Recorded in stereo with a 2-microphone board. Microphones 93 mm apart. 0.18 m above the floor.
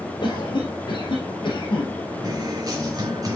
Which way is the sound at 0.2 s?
60° left (ahead or behind).